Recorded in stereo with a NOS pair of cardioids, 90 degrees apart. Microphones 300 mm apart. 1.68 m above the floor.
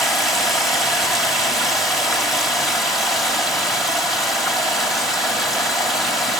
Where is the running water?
Straight ahead, 3 m.